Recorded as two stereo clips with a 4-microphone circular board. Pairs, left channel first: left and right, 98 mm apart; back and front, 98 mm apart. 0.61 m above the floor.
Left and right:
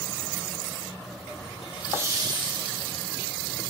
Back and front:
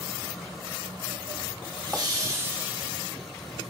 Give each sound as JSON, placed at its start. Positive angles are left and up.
{"t": 1.6, "sound": "laughter", "azimuth_deg": 0, "distance_m": 1.0}